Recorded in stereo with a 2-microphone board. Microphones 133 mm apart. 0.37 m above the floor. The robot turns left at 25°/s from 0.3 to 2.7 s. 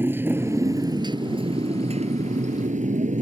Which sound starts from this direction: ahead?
A motorcycle, at 0.0 s.